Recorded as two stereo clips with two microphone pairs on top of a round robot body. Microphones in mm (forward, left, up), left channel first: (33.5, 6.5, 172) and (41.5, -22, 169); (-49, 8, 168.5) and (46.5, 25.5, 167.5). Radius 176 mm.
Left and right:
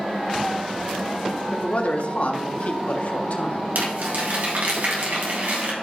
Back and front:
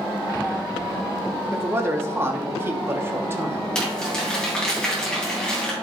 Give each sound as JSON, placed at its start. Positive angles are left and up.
{"t": 1.5, "sound": "a man speaking", "azimuth_deg": 75, "distance_m": 1.9}
{"t": 3.8, "sound": "crumpling", "azimuth_deg": -85, "distance_m": 3.0}